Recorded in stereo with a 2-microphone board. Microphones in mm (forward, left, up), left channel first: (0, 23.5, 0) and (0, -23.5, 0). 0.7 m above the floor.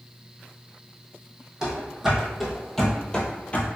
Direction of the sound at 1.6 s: 15° right (ahead or behind).